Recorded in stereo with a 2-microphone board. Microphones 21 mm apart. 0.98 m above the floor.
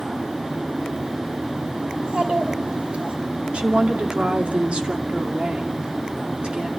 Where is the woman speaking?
60° right (ahead or behind), 2.5 m.